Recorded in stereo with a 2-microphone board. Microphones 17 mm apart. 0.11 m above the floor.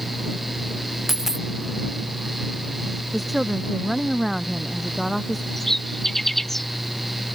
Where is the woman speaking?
Centre (ahead or behind).